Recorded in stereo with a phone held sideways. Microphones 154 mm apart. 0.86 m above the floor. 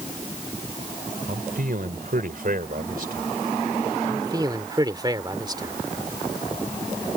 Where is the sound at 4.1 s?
25° right (ahead or behind).